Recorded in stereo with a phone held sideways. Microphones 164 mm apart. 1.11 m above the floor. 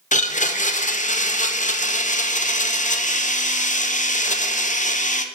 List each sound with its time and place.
0.1 s a blender: 45° left (ahead or behind), 0.8 m